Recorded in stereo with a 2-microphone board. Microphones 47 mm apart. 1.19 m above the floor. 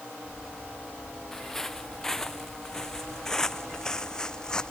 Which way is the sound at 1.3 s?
10° left (ahead or behind).